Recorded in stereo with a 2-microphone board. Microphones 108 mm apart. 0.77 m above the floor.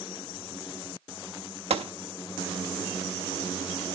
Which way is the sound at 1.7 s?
70° right (ahead or behind).